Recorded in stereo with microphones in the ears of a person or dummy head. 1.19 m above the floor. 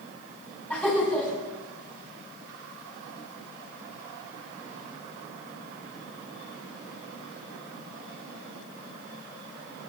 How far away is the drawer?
I don't hear a drawer.